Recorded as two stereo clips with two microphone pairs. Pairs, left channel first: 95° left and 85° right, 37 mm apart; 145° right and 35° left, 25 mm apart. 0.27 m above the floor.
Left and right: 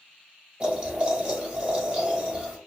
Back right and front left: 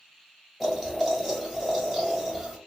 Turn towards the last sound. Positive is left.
turn(degrees=-55)